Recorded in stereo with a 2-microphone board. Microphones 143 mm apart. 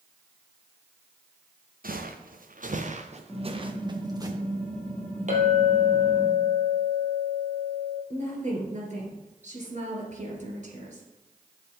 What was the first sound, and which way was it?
Footsteps, 85° right.